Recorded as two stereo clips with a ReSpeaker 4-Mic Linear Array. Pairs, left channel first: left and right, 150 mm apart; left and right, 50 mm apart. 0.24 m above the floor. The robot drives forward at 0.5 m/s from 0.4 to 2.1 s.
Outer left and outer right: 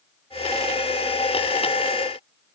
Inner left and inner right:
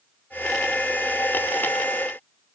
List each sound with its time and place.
Only background noise.